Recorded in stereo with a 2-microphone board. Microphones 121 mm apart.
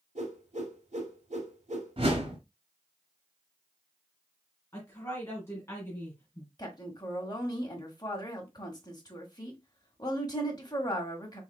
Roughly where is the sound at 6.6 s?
Left.